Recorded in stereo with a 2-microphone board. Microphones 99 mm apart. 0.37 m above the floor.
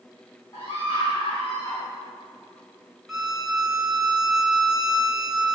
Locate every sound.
0.5 s a scream: 40° left (ahead or behind), 3.5 m
3.1 s a violin: 5° right (ahead or behind), 1.6 m